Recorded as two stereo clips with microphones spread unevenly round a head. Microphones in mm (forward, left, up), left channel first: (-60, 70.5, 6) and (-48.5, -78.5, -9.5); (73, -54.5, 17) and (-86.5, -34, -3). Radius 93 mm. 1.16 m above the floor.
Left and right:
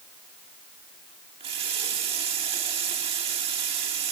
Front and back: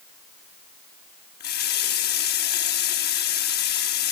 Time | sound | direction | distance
1.4 | a running tap | 25° right | 1.4 m